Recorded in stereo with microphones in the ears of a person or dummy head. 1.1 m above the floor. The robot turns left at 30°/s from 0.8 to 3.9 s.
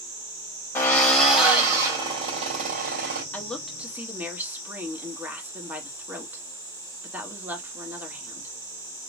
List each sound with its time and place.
0.8 s a drill: 15° left, 2.5 m; by 3.2 s 55° right, 2.5 m
3.3 s a woman speaking: 10° left (ahead or behind), 1.6 m; by 8.5 s 5° right (ahead or behind), 1.6 m